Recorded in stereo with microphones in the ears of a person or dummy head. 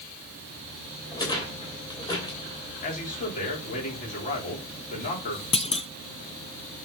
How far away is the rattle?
About 3 m.